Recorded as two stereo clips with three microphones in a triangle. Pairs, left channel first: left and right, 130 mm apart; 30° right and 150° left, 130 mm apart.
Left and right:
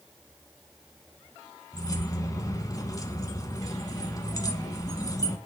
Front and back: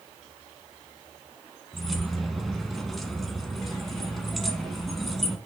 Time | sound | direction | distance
1.7 | keys jangling | 60° left | 1.0 m